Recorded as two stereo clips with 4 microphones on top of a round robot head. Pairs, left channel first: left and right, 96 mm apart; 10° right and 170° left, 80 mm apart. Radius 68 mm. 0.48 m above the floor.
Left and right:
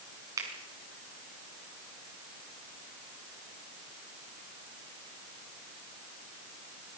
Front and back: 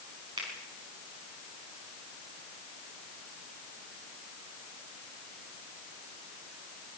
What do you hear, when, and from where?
0.4 s a finger snap: 145° right, 5.5 m